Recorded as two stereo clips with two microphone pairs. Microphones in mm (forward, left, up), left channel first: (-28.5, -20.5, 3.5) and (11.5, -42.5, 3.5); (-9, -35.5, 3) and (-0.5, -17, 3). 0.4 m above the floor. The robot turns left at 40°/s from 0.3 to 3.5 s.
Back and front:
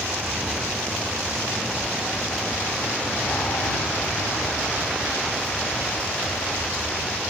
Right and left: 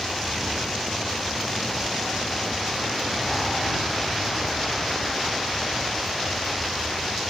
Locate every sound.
0.0 s an aircraft: 55° right; by 7.3 s straight behind